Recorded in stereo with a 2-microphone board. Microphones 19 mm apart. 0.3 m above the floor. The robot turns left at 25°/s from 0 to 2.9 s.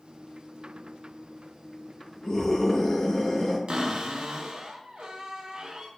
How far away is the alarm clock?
I don't hear an alarm clock.